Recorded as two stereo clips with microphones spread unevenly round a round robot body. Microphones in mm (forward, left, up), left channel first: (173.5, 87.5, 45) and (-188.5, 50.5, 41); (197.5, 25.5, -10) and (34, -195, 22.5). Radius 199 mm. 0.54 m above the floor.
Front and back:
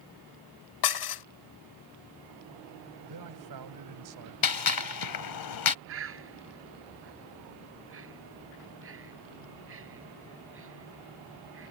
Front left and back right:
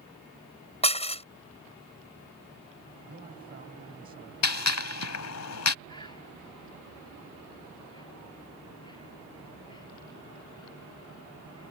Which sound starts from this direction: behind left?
A bird, at 5.8 s.